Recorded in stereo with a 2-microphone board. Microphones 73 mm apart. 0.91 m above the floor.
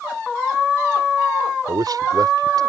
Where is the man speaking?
65° right (ahead or behind).